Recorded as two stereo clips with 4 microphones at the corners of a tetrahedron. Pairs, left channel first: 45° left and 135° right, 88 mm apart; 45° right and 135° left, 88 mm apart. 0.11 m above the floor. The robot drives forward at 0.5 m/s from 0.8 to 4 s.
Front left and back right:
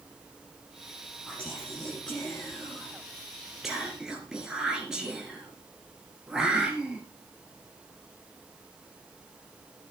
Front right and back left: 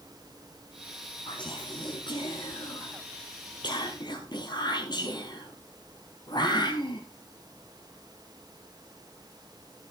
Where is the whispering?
30° right, 3 m; by 7.0 s 55° right, 2.0 m.